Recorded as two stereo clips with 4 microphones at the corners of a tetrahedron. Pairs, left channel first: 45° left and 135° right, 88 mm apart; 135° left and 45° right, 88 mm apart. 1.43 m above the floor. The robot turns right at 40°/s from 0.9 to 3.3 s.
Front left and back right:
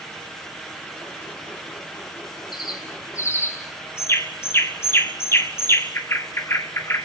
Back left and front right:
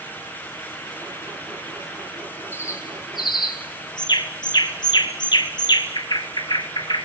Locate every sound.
2.5 s a bird: 75° left, 1.8 m; by 7.0 s 105° left, 1.8 m